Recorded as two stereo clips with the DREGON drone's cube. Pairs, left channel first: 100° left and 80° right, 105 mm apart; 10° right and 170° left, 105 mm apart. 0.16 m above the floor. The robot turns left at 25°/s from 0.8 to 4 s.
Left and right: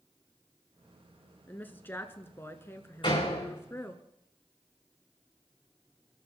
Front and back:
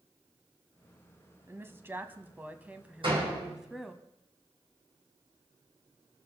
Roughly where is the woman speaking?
Behind left.